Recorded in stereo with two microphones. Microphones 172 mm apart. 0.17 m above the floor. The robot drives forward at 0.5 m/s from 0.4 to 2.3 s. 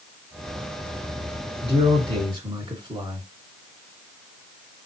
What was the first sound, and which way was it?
A man speaking, 30° right (ahead or behind).